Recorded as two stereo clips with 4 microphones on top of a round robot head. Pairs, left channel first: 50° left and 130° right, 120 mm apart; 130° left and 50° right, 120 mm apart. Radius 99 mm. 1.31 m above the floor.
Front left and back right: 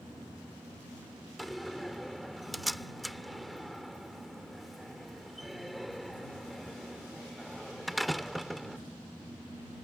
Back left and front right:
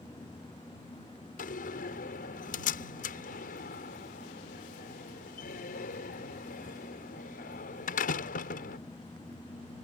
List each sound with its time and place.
1.4 s a door slam: 140° left